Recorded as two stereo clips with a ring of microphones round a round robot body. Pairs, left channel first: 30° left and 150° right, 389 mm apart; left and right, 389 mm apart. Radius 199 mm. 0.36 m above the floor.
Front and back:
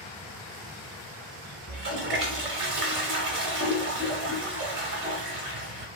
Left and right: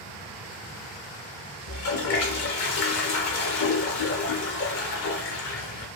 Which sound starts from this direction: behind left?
A toilet flushing, at 1.7 s.